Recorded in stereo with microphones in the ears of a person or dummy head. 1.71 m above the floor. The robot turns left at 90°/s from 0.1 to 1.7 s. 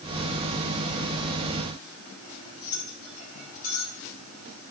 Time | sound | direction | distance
2.2 | cutlery clinking | 45° left (ahead or behind) | 9 m